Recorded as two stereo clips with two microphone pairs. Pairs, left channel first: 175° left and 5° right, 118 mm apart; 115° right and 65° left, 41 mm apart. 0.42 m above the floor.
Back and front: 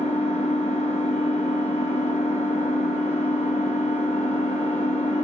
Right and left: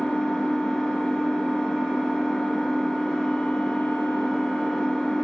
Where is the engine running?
170° left, 1.5 m.